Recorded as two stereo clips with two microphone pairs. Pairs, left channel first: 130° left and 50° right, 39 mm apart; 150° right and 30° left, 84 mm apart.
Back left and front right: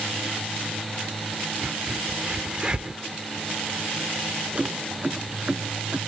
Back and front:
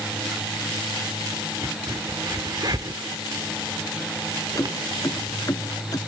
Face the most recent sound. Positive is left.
turn(degrees=-105)